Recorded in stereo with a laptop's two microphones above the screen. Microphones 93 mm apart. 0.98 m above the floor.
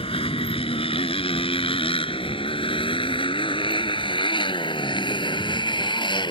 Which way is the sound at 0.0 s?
85° left.